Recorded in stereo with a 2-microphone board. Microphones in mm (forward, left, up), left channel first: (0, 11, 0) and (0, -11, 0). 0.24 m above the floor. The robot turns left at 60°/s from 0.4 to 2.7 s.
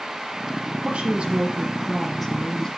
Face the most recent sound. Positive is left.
turn(degrees=150)